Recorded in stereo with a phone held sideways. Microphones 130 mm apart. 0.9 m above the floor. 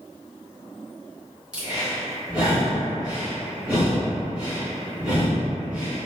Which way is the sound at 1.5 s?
5° right (ahead or behind).